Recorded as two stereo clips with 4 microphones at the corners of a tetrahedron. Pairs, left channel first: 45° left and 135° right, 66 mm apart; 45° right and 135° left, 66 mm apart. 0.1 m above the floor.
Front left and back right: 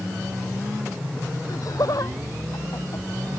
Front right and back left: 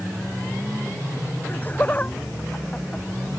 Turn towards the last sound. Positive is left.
turn(degrees=25)